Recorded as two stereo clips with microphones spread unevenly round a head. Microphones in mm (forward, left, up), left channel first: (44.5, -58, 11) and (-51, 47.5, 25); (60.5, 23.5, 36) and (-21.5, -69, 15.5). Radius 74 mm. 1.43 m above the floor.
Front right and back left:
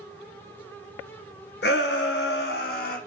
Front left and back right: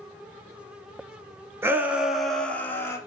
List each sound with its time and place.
1.6 s a shout: 60° right, 0.9 m; by 3.0 s 20° right, 1.0 m